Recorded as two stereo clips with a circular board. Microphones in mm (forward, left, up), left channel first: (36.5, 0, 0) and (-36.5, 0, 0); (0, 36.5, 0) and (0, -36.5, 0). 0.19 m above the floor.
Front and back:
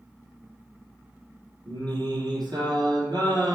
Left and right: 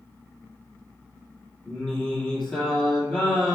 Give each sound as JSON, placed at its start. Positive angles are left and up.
{"t": 1.7, "sound": "singing", "azimuth_deg": 165, "distance_m": 3.5}